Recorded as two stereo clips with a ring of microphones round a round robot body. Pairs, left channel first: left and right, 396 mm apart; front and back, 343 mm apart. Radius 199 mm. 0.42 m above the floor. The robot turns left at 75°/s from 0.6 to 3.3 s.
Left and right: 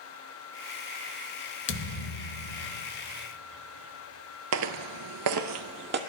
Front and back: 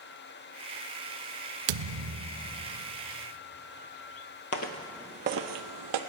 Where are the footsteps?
45° right, 0.6 m; by 6.0 s 155° right, 0.9 m.